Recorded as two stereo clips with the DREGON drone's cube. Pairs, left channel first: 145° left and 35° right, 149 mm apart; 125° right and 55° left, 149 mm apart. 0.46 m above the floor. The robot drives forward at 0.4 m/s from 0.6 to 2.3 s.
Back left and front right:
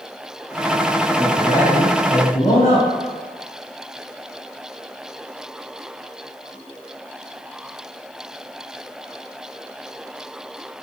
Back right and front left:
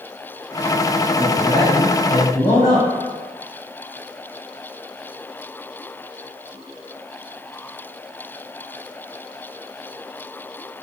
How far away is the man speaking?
About 1.8 m.